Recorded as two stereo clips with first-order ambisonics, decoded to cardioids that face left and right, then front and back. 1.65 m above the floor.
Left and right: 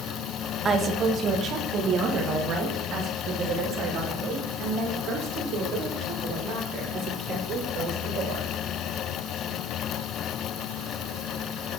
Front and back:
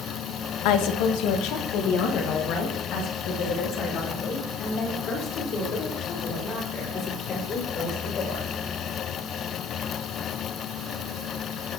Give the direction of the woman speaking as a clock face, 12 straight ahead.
1 o'clock.